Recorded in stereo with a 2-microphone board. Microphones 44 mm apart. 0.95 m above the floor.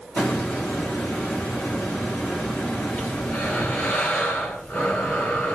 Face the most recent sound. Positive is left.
turn(degrees=55)  # may be behind; listen again after turning